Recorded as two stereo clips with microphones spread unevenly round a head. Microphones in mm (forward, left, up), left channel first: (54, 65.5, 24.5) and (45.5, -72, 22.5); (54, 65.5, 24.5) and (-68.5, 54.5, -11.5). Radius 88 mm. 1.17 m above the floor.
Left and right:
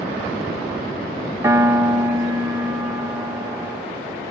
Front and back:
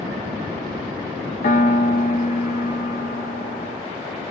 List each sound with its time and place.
1.4 s a piano: 25° right, 0.6 m